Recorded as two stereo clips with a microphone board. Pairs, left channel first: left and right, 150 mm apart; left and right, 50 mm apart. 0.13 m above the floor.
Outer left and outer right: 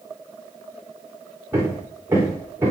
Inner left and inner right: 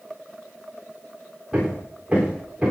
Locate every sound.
1.5 s hammering: 15° right (ahead or behind), 8.5 m